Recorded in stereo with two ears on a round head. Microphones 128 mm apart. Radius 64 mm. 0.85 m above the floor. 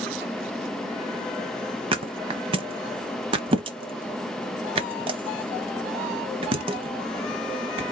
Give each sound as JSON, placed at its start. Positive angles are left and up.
{"t": 1.9, "sound": "a thud", "side_deg": -35, "distance_m": 0.9}